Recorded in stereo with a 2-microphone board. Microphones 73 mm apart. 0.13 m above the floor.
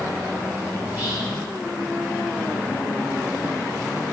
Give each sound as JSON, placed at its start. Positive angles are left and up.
{"t": 0.8, "sound": "whispering", "side_deg": -30, "distance_m": 2.0}